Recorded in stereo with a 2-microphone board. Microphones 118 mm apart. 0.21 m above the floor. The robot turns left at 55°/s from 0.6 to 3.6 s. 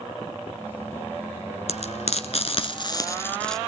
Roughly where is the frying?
Left.